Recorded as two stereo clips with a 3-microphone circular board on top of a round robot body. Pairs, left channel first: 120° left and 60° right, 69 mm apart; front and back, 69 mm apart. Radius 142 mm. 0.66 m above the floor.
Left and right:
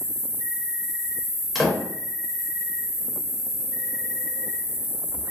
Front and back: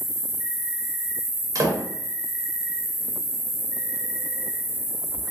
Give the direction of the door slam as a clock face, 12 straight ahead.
5 o'clock.